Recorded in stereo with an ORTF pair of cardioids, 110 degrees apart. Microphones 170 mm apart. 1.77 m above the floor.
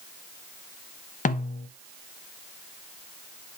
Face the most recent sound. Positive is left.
turn(degrees=50)